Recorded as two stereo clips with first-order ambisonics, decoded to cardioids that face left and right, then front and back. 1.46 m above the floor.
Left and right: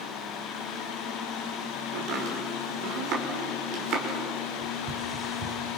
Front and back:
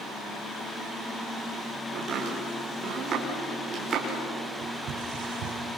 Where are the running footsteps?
140° right, 4.5 m; by 5.6 s 160° right, 4.5 m.